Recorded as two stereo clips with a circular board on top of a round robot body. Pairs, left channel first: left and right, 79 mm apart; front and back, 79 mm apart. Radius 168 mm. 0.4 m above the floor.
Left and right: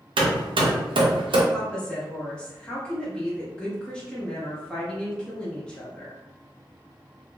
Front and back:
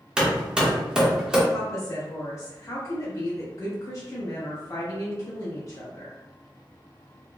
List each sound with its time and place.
0.2 s hammering: 100° right, 0.6 m
1.5 s a woman speaking: 20° left, 1.0 m